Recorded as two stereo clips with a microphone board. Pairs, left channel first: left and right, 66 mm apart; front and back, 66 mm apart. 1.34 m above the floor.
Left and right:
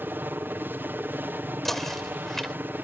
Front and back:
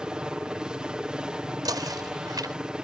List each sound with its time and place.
0.0 s a helicopter: 115° right
1.6 s knocking: 175° left